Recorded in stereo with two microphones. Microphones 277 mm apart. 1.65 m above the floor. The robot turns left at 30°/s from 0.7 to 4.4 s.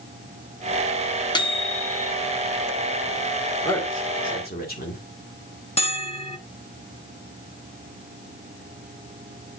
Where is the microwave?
15° left (ahead or behind), 0.8 m; by 2.1 s 30° left (ahead or behind), 0.8 m.